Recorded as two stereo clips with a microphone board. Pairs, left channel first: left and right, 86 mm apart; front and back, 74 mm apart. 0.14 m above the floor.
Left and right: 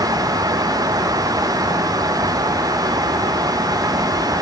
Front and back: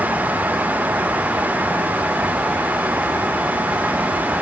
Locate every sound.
Only background noise.